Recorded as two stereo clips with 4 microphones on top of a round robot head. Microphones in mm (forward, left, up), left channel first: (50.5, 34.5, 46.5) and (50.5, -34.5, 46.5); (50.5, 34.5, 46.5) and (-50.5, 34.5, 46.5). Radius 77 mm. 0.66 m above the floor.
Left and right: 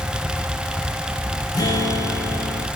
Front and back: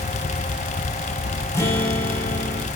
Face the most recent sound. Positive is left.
turn(degrees=65)